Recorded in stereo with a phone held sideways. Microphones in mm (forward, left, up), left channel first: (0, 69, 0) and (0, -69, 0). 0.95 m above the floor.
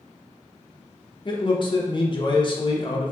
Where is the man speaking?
40° left (ahead or behind), 0.7 m.